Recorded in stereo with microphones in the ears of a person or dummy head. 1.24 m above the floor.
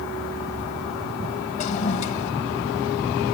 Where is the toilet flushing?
40° left (ahead or behind), 1.8 m.